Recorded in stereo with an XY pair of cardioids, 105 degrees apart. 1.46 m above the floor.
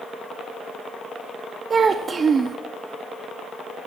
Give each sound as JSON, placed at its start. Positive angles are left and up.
{"t": 1.7, "sound": "a child speaking", "azimuth_deg": -40, "distance_m": 0.6}